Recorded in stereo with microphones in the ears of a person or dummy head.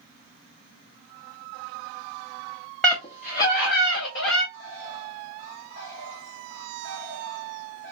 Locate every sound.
2.8 s a scream: 10° left (ahead or behind), 0.6 m; by 4.4 s 75° left (ahead or behind), 2.5 m
4.5 s a bird: 65° left (ahead or behind), 1.1 m